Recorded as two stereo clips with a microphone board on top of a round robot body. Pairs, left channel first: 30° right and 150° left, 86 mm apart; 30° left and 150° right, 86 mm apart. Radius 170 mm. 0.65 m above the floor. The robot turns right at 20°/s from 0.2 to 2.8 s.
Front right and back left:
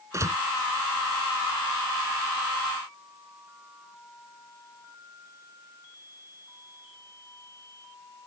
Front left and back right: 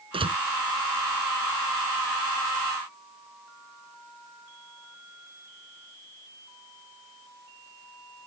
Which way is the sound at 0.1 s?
155° right.